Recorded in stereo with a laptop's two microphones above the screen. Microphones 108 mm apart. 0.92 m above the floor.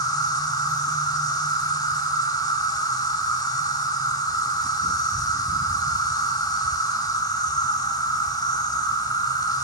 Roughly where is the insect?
Left.